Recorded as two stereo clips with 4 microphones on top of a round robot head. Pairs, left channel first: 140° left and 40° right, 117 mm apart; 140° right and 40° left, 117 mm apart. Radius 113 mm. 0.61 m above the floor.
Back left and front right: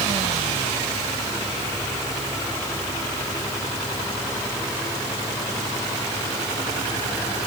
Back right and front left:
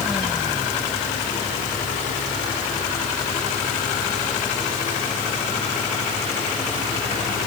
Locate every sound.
Only background noise.